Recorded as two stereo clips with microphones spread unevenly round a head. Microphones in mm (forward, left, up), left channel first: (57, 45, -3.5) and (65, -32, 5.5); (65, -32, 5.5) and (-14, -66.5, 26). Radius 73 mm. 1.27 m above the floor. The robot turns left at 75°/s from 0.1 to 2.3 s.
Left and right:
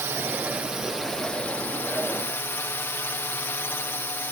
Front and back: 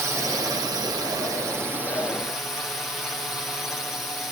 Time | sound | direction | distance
0.0 | a drone | 110° right | ?